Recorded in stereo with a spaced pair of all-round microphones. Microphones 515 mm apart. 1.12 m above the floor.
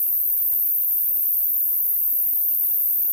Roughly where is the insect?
Left.